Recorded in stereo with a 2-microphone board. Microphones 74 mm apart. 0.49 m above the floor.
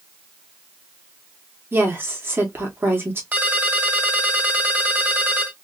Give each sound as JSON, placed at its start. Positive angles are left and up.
{"t": 1.7, "sound": "a woman speaking", "side_deg": -30, "distance_m": 1.2}
{"t": 3.3, "sound": "a ringtone", "side_deg": -25, "distance_m": 1.4}